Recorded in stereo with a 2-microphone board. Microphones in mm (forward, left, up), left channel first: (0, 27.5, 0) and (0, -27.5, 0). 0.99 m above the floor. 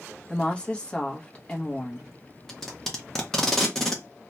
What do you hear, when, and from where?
0.3 s a woman speaking: 20° left (ahead or behind), 0.8 m
2.5 s tape being pulled: 10° left (ahead or behind), 0.8 m